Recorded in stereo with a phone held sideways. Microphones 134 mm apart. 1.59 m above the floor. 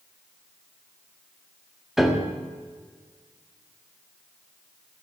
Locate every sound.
2.0 s a piano: 5° right (ahead or behind), 1.2 m